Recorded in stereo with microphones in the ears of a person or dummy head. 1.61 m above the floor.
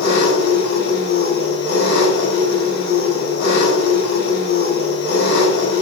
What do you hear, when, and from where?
0.0 s an engine running: 75° left (ahead or behind), 5.5 m